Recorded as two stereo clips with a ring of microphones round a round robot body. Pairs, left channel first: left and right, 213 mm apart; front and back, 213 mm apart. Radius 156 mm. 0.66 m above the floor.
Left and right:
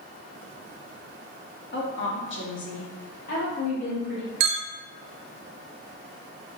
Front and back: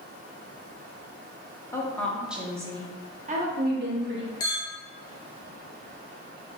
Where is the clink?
75° right, 0.6 m.